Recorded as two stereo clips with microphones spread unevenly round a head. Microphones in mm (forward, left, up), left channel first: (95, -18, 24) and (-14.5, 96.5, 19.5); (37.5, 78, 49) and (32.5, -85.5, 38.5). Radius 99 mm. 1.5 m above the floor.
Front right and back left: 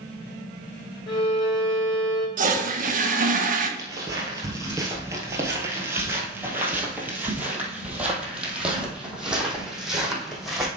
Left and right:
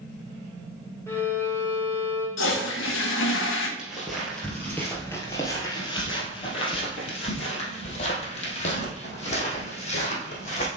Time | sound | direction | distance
1.1 | a violin | 10° left | 3.5 m
2.4 | a toilet flushing | 95° left | 1.2 m
3.8 | footsteps | straight behind | 1.6 m